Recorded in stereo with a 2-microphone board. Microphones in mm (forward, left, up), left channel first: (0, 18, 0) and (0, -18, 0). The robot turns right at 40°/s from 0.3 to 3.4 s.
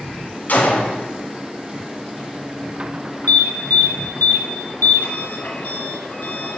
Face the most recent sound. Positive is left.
turn(degrees=60)  # may be behind; listen again after turning